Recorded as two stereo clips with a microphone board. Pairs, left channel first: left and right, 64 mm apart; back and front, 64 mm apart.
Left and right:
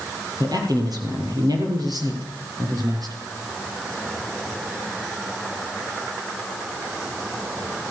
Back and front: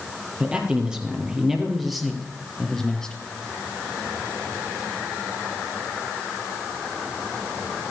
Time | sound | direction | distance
0.4 | a man speaking | 75° right | 4 m